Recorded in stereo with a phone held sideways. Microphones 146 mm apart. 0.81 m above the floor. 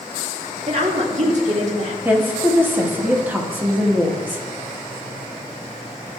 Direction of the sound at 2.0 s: 10° right (ahead or behind).